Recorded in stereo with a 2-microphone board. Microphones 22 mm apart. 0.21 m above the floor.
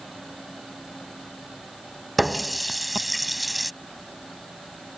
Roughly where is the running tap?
Centre.